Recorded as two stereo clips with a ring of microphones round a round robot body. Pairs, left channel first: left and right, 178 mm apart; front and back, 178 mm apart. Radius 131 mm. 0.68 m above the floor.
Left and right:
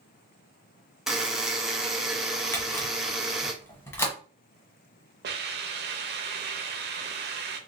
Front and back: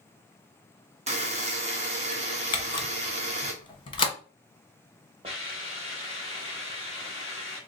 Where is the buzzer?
175° right, 0.9 m.